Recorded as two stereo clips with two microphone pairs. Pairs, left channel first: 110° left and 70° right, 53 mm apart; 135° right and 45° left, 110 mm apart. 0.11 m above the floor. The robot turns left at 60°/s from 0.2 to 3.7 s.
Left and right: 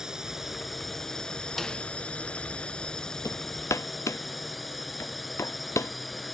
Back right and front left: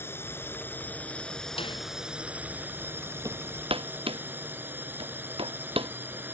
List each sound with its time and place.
0.0 s a drone: 130° right; by 6.3 s 20° left
1.6 s a snare drum: 165° right; by 1.8 s straight behind
3.2 s hammering: 105° left; by 5.9 s 80° left